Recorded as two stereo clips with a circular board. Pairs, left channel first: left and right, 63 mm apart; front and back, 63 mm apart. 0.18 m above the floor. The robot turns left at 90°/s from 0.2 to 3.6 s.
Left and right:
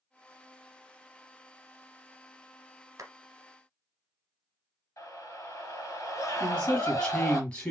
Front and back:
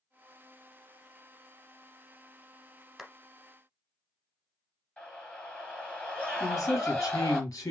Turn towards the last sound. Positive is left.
turn(degrees=20)